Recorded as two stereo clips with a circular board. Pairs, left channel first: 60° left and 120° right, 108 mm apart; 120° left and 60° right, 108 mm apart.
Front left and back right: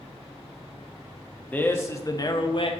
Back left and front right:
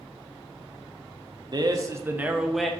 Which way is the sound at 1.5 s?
15° right.